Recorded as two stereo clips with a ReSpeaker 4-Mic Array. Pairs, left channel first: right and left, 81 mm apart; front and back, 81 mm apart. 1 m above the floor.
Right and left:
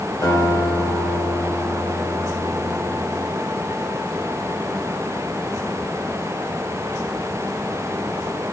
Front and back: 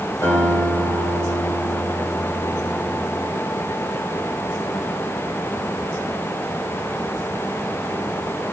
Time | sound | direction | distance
0.2 | a guitar | 55° right | 2 m